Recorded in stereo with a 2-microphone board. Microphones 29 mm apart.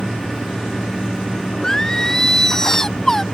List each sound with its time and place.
1.6 s singing: 15° left (ahead or behind)